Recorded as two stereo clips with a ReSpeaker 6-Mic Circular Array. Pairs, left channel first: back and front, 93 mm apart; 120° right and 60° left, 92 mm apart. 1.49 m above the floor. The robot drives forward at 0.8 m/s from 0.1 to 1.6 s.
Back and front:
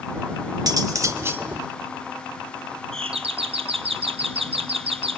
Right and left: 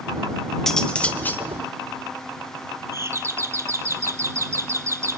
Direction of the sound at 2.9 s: Straight ahead.